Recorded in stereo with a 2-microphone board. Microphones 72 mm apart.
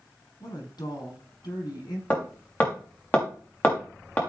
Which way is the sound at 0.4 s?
70° left (ahead or behind).